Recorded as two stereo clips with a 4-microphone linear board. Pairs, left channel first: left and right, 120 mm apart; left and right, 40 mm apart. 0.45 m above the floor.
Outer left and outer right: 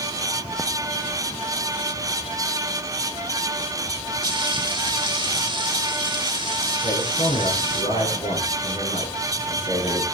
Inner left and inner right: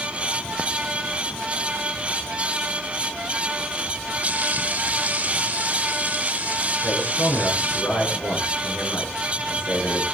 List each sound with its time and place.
4.2 s frying: 35° right (ahead or behind), 1.7 m
6.8 s a man speaking: 60° left (ahead or behind), 6 m